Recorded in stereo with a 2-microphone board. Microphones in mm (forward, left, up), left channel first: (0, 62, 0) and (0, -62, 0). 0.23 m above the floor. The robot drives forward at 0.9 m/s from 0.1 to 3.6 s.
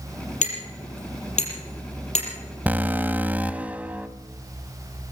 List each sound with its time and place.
0.4 s hammering: 80° left, 5.5 m; by 2.3 s 65° left (ahead or behind), 6 m
2.7 s an alarm: 15° right (ahead or behind), 0.7 m; by 4.1 s 10° right (ahead or behind), 0.9 m